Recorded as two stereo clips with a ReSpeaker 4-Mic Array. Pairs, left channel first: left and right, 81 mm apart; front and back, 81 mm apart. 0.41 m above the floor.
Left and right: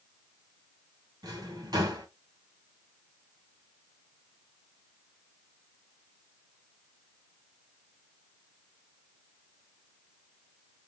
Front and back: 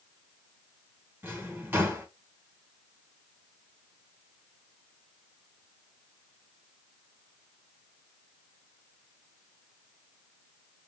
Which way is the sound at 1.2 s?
115° right.